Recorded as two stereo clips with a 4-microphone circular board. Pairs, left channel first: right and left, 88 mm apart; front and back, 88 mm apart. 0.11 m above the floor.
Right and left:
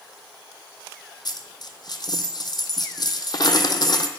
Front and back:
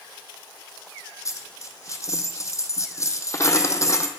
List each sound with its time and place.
1.2 s a dropped coin: 55° right, 0.6 m